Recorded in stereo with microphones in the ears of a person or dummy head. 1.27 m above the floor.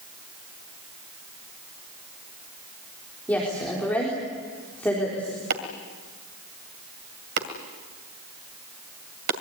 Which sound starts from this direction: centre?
A woman speaking, at 3.3 s.